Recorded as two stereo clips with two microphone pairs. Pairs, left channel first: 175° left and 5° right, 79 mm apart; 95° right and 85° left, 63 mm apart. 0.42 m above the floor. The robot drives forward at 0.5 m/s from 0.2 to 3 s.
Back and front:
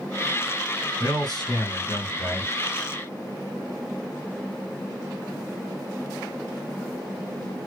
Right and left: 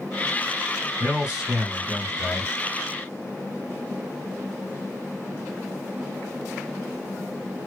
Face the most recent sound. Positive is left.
turn(degrees=170)